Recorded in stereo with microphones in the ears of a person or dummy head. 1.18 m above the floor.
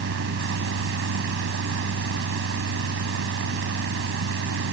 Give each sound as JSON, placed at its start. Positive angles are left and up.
{"t": 0.0, "sound": "a fan", "side_deg": -70}